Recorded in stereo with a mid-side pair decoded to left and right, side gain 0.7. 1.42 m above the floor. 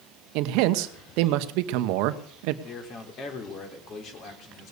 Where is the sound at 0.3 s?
70° right, 1.0 m.